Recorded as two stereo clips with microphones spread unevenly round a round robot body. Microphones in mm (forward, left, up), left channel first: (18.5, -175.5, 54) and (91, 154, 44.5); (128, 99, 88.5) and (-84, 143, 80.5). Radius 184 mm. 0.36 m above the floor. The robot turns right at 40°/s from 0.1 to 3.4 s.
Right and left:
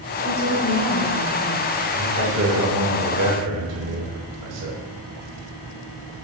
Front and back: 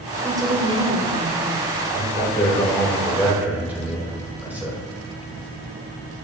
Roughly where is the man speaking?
Ahead left.